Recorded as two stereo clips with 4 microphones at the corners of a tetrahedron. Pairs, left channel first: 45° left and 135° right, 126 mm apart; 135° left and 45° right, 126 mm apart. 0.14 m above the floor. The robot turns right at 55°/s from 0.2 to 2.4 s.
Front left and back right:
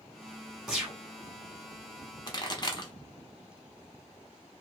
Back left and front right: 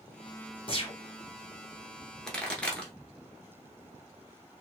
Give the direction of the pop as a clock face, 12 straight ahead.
10 o'clock.